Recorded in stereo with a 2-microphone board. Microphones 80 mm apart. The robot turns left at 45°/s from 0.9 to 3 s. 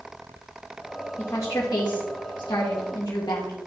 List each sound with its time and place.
1.2 s a woman speaking: 145° left, 1.4 m; by 3.6 s 60° left, 1.4 m